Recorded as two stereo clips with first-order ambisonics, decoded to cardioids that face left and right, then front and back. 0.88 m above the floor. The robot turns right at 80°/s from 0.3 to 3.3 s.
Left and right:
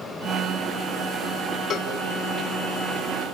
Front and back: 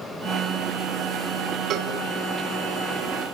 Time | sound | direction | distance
1.7 | a cowbell | 135° left | 1.2 m